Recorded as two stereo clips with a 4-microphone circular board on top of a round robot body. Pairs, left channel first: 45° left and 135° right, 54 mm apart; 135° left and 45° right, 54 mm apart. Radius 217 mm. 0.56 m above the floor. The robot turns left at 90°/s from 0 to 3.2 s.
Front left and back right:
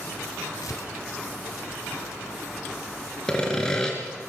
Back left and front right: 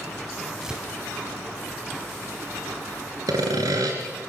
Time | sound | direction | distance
0.6 | tearing paper | 40° left | 0.9 m
3.3 | sawing | 35° right | 2.5 m